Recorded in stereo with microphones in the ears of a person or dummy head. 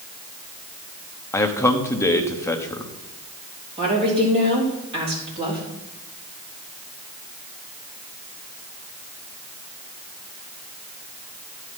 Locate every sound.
1.3 s a man speaking: 15° left (ahead or behind), 0.9 m
3.8 s a woman speaking: 25° right (ahead or behind), 3.5 m